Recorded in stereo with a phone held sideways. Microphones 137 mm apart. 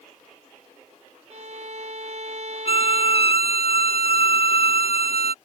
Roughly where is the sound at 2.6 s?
Left.